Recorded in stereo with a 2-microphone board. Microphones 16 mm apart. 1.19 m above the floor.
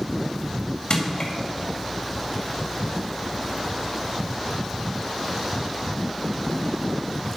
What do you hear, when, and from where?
0.9 s crushing: 60° left (ahead or behind), 1.9 m